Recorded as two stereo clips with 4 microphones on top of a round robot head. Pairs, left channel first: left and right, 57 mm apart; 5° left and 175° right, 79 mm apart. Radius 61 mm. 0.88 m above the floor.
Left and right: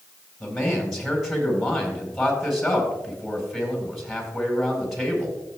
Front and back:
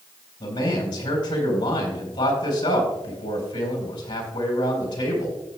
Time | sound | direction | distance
0.4 | a man speaking | straight ahead | 4.5 m